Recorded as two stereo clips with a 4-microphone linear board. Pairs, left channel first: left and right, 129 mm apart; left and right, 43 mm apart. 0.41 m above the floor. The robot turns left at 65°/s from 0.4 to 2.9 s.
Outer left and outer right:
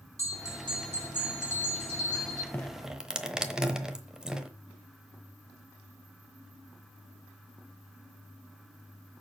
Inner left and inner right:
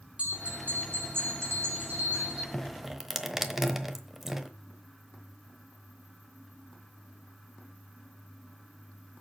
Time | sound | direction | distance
0.2 | a bell | 25° right | 5 m
2.5 | dripping | 15° left (ahead or behind) | 0.9 m